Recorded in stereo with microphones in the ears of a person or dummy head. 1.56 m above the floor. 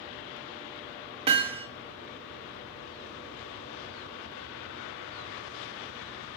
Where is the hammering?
30° right (ahead or behind), 1.8 m.